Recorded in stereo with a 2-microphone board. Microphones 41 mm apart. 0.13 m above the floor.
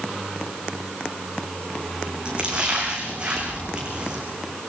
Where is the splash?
25° right (ahead or behind), 7.5 m.